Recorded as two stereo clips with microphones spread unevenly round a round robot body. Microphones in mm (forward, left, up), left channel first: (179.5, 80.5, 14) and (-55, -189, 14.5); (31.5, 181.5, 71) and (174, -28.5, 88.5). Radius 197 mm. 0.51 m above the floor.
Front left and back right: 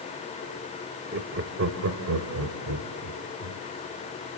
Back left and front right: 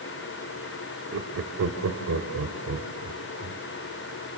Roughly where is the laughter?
Right.